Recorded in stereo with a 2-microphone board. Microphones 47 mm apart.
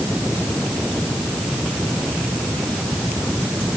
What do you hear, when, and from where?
Only background noise.